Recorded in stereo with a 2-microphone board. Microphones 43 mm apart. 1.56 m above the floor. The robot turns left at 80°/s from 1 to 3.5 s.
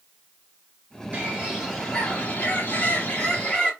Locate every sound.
1.1 s a bird: 135° right, 1.9 m; by 3.7 s 35° left, 1.9 m